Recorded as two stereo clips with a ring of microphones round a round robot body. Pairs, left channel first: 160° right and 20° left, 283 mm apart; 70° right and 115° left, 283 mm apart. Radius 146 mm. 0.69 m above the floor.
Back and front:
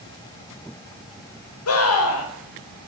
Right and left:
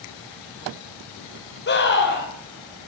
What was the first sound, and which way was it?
A scream, 120° right.